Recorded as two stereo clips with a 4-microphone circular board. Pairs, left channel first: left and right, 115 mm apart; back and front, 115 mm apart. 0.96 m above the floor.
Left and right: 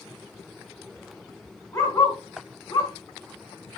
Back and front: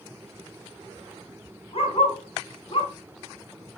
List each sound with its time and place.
1.7 s a dog barking: 150° left, 3.5 m; by 2.9 s 135° left, 3.5 m